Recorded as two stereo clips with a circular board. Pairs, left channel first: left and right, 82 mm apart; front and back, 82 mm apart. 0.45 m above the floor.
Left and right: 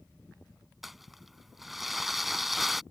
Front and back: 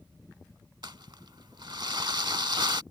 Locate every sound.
0.8 s crumpling: 175° right